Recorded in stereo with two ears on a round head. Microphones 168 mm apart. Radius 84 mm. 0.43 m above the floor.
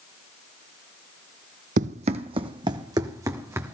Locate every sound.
1.8 s running footsteps: 40° right (ahead or behind), 0.7 m; by 3.8 s 15° right (ahead or behind), 1.5 m